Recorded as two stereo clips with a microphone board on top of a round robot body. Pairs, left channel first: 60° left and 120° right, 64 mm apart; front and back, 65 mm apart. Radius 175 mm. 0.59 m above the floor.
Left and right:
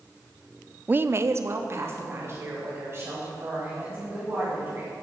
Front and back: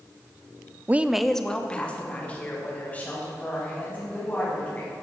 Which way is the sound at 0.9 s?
160° right.